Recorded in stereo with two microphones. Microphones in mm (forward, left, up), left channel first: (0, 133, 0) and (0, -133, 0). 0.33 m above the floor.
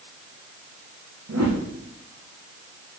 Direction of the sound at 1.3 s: 75° right (ahead or behind).